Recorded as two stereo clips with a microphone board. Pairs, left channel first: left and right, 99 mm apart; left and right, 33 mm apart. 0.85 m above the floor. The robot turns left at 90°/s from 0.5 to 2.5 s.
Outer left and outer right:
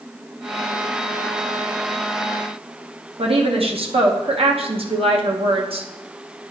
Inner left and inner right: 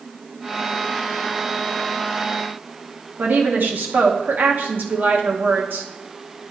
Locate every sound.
3.2 s a woman speaking: 70° right (ahead or behind), 1.0 m